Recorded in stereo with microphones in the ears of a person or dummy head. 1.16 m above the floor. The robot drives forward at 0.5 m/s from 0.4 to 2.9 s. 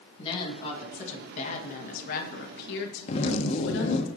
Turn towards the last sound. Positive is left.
turn(degrees=40)  # may be behind; listen again after turning